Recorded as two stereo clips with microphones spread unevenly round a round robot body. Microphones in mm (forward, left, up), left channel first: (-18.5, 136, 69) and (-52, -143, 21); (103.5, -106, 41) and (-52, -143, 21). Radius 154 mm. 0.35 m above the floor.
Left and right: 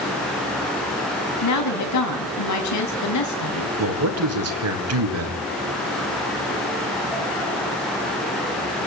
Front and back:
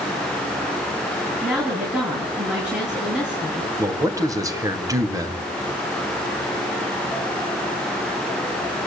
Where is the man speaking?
105° right, 3 m.